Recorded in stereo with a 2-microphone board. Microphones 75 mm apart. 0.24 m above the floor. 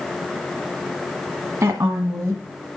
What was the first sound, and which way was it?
A woman speaking, 45° right (ahead or behind).